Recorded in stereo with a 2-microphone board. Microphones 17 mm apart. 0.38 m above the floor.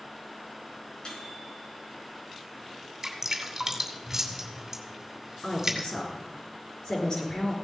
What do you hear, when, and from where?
1.1 s a microwave: 70° left (ahead or behind), 4.5 m
3.0 s dripping: 25° right (ahead or behind), 2.5 m
5.4 s a woman speaking: 55° left (ahead or behind), 5 m